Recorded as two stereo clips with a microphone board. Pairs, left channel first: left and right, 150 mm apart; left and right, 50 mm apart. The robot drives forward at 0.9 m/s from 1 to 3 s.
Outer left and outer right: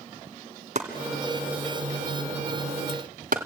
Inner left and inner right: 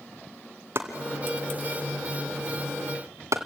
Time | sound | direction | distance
0.8 | chopping | 55° right (ahead or behind) | 2.5 m